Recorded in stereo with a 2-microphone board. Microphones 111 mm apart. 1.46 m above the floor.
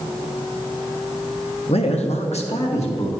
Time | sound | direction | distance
1.7 | a man speaking | 60° left (ahead or behind) | 0.8 m